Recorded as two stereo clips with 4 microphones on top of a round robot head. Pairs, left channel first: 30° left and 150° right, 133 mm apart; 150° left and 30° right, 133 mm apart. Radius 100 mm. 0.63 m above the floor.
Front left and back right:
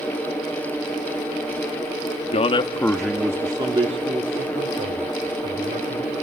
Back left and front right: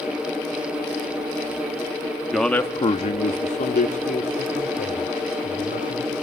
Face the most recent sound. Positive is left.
turn(degrees=180)